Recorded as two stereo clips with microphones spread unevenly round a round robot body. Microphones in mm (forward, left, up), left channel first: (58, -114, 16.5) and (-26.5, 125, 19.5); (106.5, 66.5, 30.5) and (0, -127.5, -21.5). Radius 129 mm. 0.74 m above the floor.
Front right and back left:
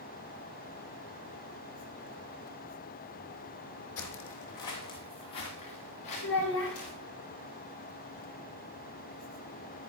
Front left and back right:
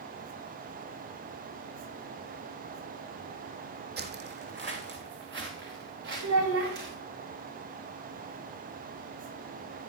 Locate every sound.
4.0 s footsteps: 75° right, 1.2 m; by 7.0 s 80° right, 4.5 m
6.2 s a child speaking: 110° right, 3 m